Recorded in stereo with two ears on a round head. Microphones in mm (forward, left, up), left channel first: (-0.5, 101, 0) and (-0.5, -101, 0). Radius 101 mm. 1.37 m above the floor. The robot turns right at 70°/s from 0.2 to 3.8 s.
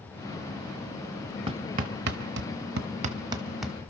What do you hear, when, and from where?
1.5 s hammering: 20° right (ahead or behind), 0.9 m; by 3.8 s 5° left (ahead or behind), 0.9 m